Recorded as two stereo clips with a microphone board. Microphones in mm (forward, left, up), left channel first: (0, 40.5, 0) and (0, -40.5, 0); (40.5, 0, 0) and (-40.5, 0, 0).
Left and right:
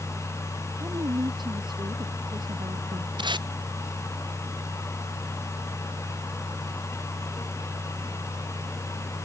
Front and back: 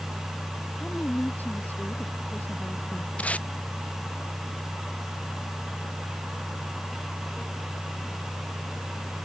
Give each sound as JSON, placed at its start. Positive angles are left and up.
{"t": 0.8, "sound": "a woman speaking", "azimuth_deg": -70}
{"t": 3.2, "sound": "tape being pulled", "azimuth_deg": -75}